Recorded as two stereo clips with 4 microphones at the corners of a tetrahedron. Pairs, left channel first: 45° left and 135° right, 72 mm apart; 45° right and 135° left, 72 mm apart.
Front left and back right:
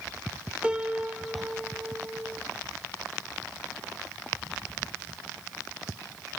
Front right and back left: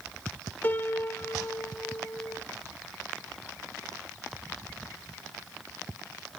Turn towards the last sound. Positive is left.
turn(degrees=-70)